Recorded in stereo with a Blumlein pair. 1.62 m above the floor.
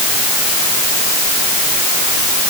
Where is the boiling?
I don't hear boiling.